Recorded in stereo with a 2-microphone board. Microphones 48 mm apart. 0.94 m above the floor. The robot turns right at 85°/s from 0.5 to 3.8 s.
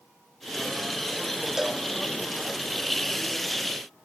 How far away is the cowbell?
About 0.8 m.